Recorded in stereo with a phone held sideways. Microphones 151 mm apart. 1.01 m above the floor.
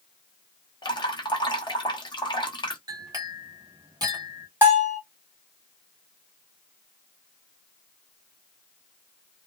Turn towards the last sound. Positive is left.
turn(degrees=-15)  # may be behind; listen again after turning